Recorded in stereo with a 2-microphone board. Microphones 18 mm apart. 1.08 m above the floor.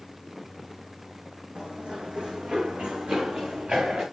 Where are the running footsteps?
55° right (ahead or behind), 2.5 m; by 4.0 s 70° right (ahead or behind), 4.5 m.